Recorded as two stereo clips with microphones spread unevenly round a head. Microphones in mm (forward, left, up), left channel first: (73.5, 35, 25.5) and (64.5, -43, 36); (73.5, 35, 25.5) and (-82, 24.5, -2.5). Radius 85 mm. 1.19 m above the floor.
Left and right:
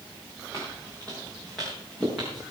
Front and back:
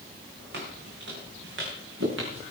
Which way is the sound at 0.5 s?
160° left.